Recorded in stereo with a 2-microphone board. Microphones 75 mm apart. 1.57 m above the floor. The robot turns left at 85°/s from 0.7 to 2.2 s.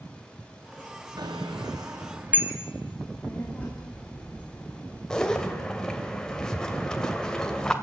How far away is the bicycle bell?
About 2.5 m.